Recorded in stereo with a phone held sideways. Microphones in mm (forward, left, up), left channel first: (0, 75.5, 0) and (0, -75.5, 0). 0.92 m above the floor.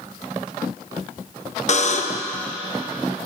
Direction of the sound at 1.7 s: 50° left (ahead or behind).